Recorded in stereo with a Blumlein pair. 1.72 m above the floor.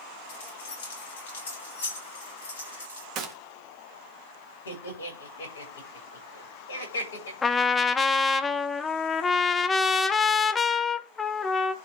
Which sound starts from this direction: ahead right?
A gunshot, at 3.1 s.